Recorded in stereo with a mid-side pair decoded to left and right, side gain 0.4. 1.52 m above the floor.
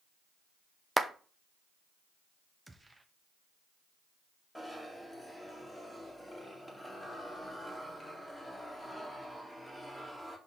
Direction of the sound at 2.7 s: 20° right.